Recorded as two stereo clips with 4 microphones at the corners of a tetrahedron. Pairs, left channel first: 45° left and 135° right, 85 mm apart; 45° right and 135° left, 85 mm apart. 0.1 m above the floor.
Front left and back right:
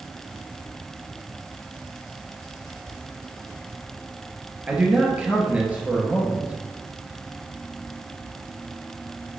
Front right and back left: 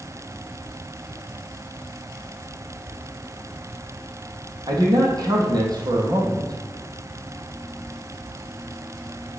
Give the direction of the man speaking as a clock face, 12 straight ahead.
7 o'clock.